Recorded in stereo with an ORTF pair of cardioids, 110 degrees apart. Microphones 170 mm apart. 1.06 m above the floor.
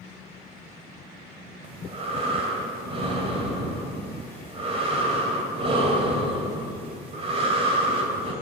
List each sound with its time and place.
1.6 s breathing: 35° right, 2 m